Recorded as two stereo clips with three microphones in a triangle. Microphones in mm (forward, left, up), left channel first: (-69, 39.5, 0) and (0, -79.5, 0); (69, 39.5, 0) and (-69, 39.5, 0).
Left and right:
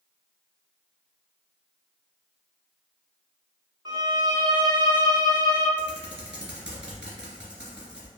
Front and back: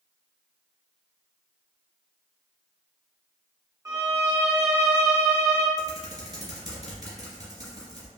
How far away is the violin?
About 0.6 m.